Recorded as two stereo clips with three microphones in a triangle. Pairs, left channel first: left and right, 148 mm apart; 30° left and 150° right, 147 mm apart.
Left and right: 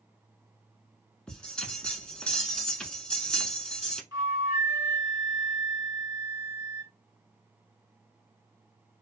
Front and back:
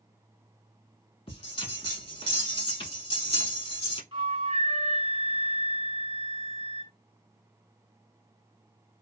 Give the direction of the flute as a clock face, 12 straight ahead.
5 o'clock.